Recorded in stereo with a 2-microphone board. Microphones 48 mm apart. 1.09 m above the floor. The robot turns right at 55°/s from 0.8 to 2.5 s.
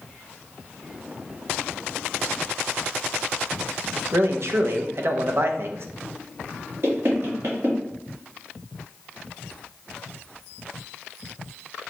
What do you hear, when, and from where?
4.1 s a man speaking: 55° right (ahead or behind), 0.6 m
6.8 s knocking: 55° right (ahead or behind), 1.6 m